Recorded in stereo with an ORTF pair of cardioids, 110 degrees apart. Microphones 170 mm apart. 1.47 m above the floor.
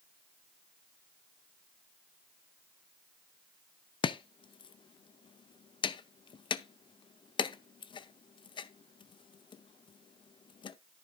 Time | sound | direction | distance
4.0 | chopping | 30° left | 0.6 m